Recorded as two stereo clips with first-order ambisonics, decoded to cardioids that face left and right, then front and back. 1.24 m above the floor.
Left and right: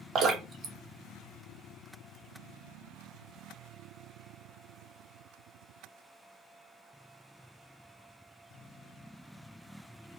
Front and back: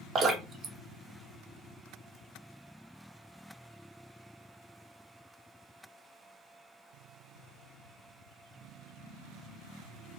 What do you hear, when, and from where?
0.1 s dripping: 125° right, 0.6 m